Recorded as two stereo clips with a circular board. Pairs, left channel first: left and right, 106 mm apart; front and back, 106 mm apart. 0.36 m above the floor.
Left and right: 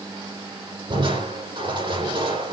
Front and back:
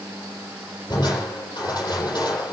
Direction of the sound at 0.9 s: 55° right.